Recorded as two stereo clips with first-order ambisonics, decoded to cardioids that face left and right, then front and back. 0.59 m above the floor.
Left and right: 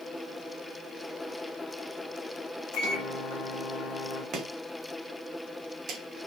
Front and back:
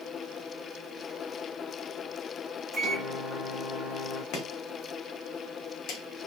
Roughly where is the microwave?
Left.